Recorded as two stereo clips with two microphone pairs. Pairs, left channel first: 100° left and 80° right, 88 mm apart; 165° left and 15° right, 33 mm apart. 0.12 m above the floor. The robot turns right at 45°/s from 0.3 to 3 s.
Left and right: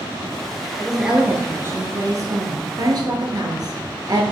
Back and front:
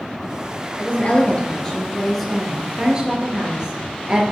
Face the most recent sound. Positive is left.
turn(degrees=-70)